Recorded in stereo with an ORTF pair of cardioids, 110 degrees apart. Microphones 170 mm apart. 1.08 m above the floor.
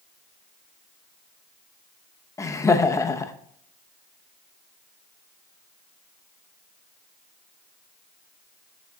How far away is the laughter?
About 0.8 m.